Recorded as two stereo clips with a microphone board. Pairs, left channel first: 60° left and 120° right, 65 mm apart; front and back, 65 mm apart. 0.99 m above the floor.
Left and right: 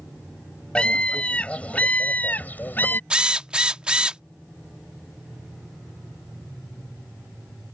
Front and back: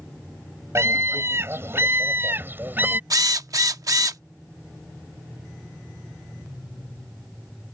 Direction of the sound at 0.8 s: 135° left.